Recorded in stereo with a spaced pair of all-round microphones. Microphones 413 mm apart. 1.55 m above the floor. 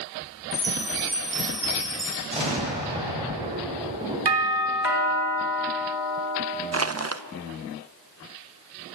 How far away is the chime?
About 5.5 m.